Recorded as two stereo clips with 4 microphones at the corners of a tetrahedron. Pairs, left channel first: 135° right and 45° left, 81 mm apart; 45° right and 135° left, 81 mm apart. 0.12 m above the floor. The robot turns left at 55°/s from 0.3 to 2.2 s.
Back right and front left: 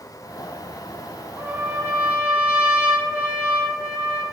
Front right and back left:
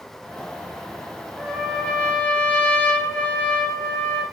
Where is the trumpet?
40° left, 1.8 m; by 4.2 s 5° right, 1.8 m.